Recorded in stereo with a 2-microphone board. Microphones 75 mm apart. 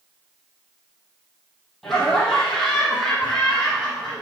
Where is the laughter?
5° left (ahead or behind), 4 m.